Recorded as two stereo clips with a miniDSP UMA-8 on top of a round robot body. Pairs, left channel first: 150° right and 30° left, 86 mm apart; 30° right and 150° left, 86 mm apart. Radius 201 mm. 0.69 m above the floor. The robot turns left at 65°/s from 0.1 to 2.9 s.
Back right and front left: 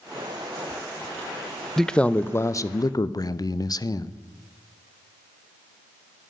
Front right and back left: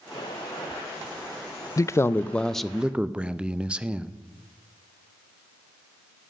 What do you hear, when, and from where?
1.8 s a man speaking: 65° right, 0.6 m; by 4.1 s 140° right, 0.6 m